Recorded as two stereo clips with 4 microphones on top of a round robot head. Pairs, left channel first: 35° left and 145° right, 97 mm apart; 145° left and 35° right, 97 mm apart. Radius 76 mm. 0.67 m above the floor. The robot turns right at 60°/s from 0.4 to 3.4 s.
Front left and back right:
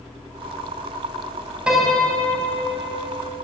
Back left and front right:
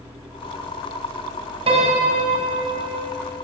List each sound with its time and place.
1.7 s a piano: 65° right, 3 m; by 3.1 s 25° left, 3 m